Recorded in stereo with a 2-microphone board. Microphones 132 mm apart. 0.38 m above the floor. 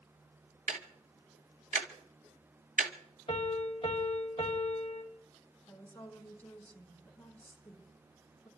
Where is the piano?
40° left (ahead or behind), 2 m.